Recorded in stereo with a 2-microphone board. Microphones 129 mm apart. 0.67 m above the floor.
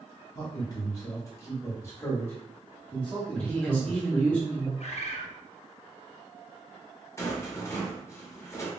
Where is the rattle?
25° left (ahead or behind), 0.9 m.